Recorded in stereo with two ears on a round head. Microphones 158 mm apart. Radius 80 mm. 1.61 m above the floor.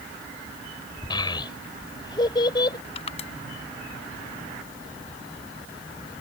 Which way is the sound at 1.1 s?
25° left (ahead or behind).